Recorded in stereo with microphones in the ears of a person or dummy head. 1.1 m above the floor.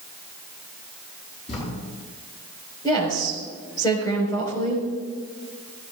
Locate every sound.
1.5 s writing: 35° left (ahead or behind), 6.5 m
2.8 s a woman speaking: 25° left (ahead or behind), 5 m